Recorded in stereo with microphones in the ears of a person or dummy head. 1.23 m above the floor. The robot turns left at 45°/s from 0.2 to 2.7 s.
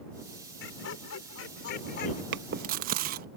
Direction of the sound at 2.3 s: 65° right (ahead or behind).